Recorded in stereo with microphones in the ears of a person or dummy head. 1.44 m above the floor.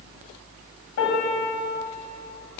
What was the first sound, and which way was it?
A piano, 80° left.